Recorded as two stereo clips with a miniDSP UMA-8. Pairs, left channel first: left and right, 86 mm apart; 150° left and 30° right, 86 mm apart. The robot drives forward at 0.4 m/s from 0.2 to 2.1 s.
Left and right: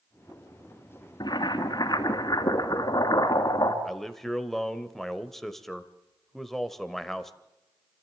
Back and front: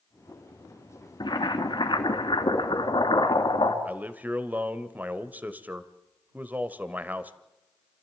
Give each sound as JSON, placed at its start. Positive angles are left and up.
{"t": 1.2, "sound": "boiling", "azimuth_deg": 120, "distance_m": 2.5}
{"t": 3.9, "sound": "a man speaking", "azimuth_deg": 10, "distance_m": 1.2}